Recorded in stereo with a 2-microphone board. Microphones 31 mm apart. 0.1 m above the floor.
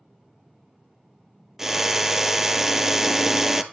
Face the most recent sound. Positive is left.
turn(degrees=-15)  # may be behind; listen again after turning